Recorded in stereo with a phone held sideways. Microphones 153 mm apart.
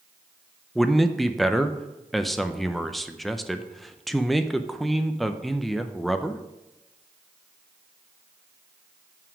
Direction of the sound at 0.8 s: Centre (ahead or behind).